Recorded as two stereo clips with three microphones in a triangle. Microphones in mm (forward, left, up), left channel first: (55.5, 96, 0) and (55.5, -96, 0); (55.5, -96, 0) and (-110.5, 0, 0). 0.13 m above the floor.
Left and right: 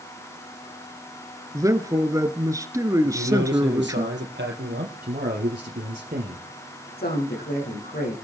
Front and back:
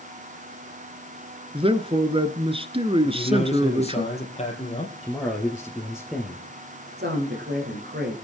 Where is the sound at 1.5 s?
160° right, 1.5 m.